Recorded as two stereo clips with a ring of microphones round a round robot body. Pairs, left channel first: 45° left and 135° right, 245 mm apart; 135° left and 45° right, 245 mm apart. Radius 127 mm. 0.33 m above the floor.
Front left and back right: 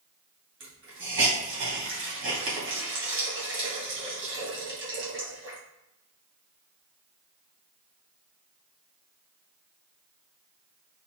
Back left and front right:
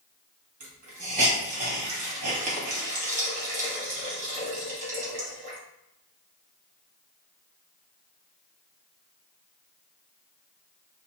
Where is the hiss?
105° right, 2 m.